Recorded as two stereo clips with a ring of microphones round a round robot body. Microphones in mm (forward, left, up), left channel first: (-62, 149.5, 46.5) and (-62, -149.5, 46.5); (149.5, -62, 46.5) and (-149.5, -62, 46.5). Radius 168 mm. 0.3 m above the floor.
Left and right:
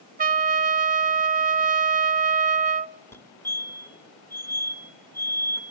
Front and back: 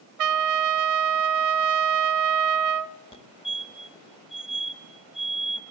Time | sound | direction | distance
0.2 | a trumpet | 155° right | 0.7 m
3.1 | a fire alarm | 25° left | 1.9 m